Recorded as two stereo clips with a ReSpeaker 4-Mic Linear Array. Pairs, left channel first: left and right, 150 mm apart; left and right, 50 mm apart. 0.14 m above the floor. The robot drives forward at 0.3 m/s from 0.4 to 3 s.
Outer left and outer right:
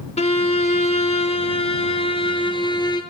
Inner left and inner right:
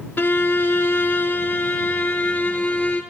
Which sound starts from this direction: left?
A violin, at 0.2 s.